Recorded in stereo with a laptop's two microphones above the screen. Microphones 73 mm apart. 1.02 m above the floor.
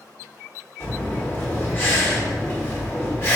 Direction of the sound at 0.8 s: 35° left (ahead or behind).